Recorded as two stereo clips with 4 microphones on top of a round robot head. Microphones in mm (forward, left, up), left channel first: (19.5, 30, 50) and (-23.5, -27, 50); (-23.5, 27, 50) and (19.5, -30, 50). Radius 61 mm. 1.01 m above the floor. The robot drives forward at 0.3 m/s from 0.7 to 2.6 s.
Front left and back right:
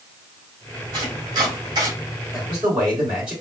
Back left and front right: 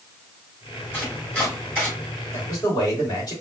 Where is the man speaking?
155° left, 3 m.